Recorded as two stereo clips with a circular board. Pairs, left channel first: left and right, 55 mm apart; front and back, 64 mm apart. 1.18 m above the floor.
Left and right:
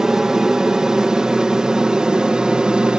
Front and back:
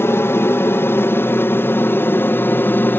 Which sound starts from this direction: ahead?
An aircraft, at 0.0 s.